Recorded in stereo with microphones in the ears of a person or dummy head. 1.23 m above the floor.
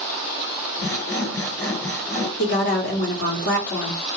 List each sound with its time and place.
0.8 s sawing: 15° left (ahead or behind), 2.0 m
2.4 s a woman speaking: 50° left (ahead or behind), 1.0 m